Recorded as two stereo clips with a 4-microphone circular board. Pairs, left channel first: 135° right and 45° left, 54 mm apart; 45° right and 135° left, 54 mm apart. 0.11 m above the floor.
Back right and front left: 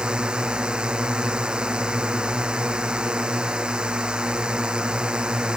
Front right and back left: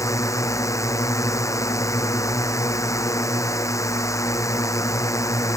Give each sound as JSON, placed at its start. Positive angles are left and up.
{"t": 0.0, "sound": "a drone", "azimuth_deg": -25}